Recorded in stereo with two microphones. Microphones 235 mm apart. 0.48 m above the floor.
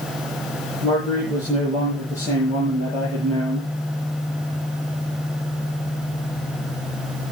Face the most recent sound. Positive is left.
turn(degrees=-30)  # may be behind; listen again after turning